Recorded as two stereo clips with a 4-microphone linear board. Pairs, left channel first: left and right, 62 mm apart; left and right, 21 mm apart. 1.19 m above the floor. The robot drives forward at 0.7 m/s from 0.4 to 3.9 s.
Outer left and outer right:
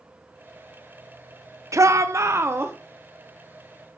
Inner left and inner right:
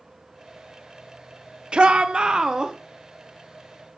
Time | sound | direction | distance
1.7 | a shout | 50° right (ahead or behind) | 0.8 m